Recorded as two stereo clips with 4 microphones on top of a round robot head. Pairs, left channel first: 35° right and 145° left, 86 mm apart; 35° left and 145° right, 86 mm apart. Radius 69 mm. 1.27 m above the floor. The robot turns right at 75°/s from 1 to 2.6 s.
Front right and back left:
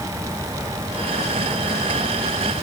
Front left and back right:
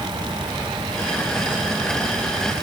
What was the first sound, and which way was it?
Only background noise.